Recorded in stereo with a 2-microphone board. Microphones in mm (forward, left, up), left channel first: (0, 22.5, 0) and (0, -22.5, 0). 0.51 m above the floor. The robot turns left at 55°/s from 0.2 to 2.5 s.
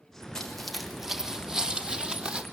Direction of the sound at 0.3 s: 15° left (ahead or behind).